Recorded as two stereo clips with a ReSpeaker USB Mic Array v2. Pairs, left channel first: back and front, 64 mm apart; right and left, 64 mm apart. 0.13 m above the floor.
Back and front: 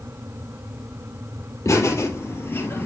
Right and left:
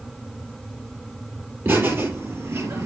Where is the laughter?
145° left, 4 m; by 2.9 s 130° left, 3 m.